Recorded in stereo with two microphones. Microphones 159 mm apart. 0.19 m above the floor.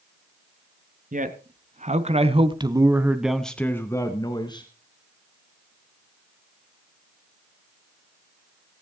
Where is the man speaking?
60° right (ahead or behind), 2 m; by 4.7 s 30° left (ahead or behind), 2 m.